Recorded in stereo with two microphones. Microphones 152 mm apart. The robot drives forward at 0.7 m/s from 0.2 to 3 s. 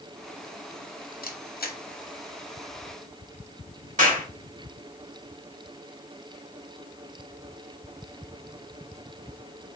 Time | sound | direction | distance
1.2 | a camera shutter | 75° left (ahead or behind) | 1.0 m
4.0 | a clap | 60° right (ahead or behind) | 2.5 m